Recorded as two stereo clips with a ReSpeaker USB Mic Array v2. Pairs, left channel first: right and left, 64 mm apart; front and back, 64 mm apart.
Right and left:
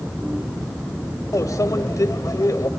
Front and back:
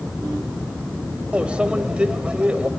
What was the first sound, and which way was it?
A microwave, 110° right.